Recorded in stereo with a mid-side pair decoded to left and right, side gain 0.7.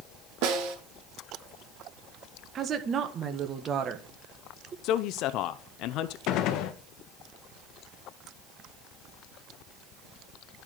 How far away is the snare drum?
About 2 m.